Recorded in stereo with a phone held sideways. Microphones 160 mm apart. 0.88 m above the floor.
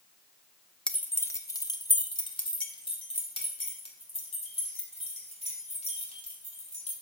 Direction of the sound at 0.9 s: 5° left (ahead or behind).